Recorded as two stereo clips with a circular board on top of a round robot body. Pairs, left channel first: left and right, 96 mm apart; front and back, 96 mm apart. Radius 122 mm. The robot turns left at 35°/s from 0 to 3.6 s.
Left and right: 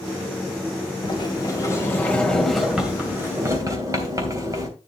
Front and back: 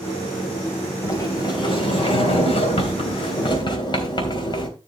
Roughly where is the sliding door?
Ahead left.